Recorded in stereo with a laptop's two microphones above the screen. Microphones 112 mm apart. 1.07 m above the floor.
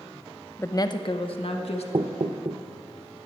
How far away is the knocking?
About 0.6 m.